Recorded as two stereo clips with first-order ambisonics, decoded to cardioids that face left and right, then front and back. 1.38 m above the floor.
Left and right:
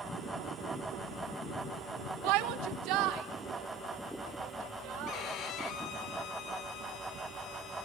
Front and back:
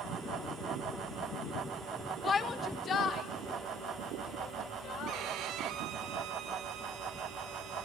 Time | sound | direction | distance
2.2 | a shout | 70° right | 1.2 m
5.1 | a violin | 140° left | 1.6 m